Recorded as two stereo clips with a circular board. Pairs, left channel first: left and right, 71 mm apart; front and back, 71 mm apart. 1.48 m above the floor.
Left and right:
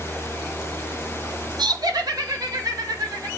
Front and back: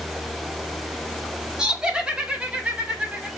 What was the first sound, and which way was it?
Laughter, 100° right.